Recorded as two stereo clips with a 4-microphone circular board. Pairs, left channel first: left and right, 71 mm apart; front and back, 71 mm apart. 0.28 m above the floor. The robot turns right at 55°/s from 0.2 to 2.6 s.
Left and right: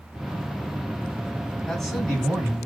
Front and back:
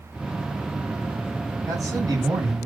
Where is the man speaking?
170° left, 3 m; by 2.7 s 140° right, 3 m.